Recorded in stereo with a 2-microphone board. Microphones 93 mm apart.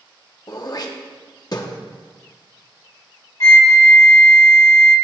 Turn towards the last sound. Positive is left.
turn(degrees=40)  # may be behind; listen again after turning